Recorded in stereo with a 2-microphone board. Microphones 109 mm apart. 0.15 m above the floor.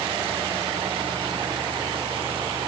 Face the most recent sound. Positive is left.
No sound to turn to.